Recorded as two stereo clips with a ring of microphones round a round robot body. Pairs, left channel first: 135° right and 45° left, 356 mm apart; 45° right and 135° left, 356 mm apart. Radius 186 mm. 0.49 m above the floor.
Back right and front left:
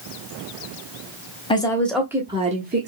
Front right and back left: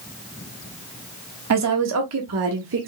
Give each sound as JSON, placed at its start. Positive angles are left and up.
{"t": 1.5, "sound": "a woman speaking", "azimuth_deg": 155, "distance_m": 1.2}